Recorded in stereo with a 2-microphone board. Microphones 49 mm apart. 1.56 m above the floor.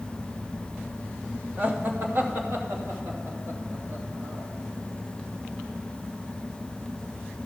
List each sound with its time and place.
1.6 s laughter: 35° right (ahead or behind), 1.1 m; by 4.5 s 65° right (ahead or behind), 4 m